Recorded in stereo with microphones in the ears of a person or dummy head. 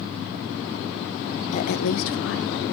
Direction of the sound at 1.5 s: 35° left (ahead or behind).